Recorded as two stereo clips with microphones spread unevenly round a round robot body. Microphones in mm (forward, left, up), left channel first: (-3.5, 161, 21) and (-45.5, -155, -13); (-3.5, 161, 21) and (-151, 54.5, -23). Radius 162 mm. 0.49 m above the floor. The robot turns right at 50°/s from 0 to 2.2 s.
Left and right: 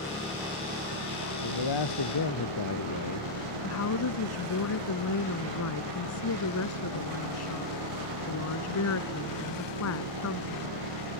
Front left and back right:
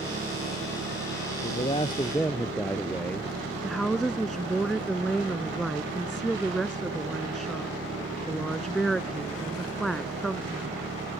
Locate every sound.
0.0 s an engine running: 160° left; by 11.2 s 90° right
1.4 s a man speaking: 80° left; by 3.3 s 115° left
3.6 s a woman speaking: 125° left